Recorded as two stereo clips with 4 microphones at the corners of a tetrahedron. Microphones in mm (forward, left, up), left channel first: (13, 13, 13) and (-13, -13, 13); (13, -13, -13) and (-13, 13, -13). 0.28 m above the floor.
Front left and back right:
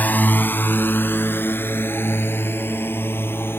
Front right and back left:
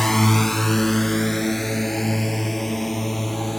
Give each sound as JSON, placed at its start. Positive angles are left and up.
{"t": 0.0, "sound": "a drone", "azimuth_deg": 35}